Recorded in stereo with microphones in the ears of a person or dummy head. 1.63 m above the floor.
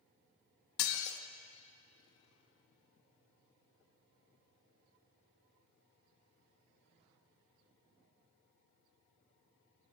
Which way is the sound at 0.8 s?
55° left (ahead or behind).